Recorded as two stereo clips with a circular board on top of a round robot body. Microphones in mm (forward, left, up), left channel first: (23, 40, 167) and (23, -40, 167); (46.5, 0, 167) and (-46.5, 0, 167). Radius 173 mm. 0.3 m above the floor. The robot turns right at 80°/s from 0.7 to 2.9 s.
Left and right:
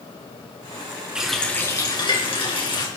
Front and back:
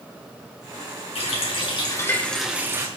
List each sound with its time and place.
1.1 s a running tap: 10° right, 4 m; by 2.9 s 125° left, 4 m